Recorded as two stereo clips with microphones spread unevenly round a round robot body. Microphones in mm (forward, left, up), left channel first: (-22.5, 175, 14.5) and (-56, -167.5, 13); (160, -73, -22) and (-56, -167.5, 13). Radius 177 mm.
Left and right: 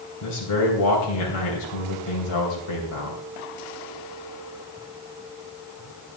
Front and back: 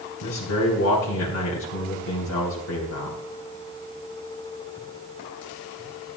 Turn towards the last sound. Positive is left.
turn(degrees=50)